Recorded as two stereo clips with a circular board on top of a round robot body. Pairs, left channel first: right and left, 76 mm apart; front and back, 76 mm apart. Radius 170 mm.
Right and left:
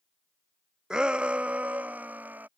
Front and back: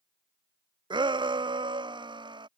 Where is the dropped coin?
No dropped coin in this recording.